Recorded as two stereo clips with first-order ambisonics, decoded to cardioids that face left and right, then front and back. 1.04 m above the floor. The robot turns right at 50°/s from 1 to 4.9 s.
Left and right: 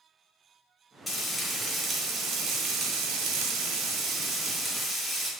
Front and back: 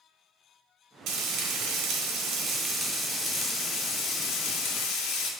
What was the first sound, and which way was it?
Frying, 165° left.